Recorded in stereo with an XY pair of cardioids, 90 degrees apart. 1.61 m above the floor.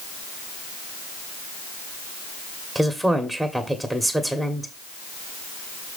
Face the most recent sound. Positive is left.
turn(degrees=-5)